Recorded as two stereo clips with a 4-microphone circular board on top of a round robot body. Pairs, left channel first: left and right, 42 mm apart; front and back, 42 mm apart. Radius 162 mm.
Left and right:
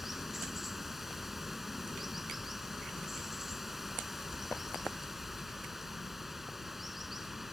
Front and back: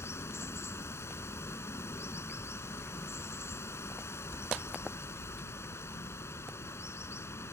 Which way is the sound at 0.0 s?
5° right.